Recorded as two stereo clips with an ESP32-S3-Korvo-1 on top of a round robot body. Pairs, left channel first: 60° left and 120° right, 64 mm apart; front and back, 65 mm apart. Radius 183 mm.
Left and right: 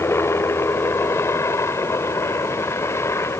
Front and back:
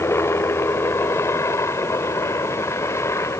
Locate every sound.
0.0 s a helicopter: 30° left; by 3.4 s 25° left